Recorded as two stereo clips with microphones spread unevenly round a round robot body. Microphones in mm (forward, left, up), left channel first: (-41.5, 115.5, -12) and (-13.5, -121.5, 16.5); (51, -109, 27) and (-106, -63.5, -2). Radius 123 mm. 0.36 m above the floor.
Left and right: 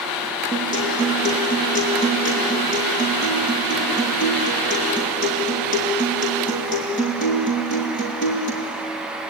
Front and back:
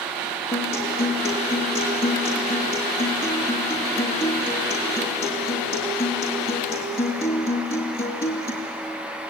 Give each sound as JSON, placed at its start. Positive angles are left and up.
{"t": 0.5, "sound": "a guitar", "azimuth_deg": 35, "distance_m": 5.0}